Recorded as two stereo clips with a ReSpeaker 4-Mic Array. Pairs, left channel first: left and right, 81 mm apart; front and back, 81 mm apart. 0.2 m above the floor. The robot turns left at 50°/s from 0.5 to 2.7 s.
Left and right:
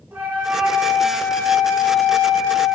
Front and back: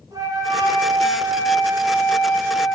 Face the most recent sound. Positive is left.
turn(degrees=90)